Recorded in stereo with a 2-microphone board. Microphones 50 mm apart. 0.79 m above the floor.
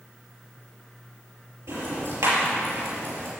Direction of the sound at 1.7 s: 85° right.